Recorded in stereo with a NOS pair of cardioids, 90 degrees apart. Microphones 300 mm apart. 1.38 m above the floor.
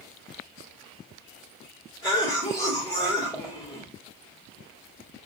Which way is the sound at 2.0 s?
15° left.